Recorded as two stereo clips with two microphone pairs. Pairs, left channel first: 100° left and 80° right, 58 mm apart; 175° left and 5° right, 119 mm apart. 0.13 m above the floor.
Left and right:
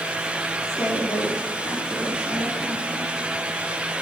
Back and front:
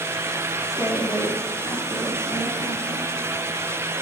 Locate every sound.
0.6 s a woman speaking: 125° left, 7 m